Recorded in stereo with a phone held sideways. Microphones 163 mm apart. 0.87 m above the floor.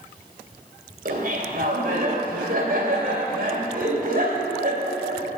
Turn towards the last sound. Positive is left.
turn(degrees=-65)  # may be behind; listen again after turning